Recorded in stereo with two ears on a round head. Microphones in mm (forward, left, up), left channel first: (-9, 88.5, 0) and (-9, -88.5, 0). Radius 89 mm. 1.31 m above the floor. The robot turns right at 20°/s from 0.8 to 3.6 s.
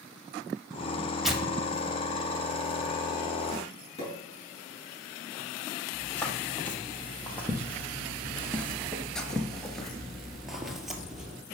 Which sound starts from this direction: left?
A pop, at 4.0 s.